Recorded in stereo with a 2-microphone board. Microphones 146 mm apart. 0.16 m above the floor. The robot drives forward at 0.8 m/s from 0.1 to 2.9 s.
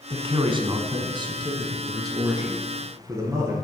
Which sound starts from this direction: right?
A man speaking, at 0.1 s.